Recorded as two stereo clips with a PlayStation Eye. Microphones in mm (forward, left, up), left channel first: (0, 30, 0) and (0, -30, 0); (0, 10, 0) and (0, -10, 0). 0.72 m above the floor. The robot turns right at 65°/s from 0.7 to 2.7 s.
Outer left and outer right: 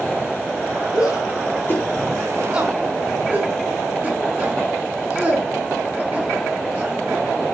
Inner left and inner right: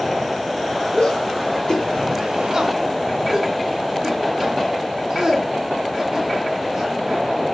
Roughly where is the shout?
Left.